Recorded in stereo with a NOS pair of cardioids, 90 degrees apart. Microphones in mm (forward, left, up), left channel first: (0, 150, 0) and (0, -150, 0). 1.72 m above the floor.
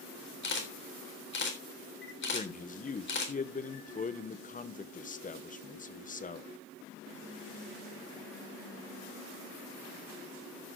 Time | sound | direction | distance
0.4 | a camera shutter | 35° left | 3.5 m
2.3 | a man speaking | 25° left | 1.4 m